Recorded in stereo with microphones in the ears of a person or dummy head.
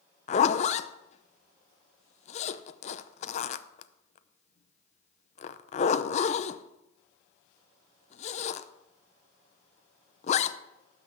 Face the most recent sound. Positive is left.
turn(degrees=30)  # may be behind; listen again after turning